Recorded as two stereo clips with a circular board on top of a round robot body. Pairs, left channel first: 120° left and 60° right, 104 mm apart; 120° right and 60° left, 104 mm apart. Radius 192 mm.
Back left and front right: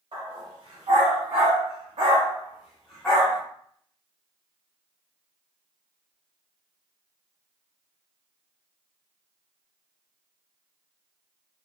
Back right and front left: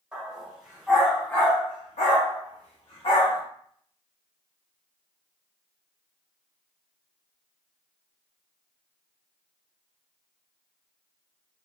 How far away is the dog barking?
About 1.6 m.